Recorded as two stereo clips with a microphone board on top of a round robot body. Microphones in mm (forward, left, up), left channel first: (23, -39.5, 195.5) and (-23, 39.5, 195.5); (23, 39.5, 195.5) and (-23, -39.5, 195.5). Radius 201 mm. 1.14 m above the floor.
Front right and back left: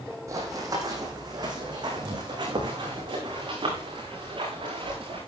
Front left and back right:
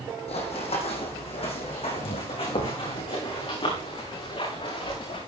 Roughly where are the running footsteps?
Ahead left.